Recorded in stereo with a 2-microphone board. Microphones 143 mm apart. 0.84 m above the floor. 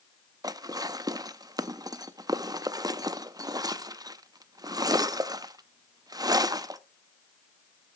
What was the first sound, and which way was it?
Dishes clattering, 25° right (ahead or behind).